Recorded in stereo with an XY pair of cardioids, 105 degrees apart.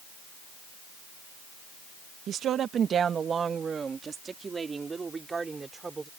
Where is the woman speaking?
70° right; by 6.1 s 25° right.